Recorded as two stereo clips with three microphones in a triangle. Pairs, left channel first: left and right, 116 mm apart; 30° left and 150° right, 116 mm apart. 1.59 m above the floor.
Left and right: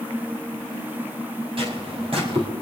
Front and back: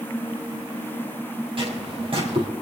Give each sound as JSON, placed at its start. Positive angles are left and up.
{"t": 1.6, "sound": "footsteps", "azimuth_deg": -120, "distance_m": 3.5}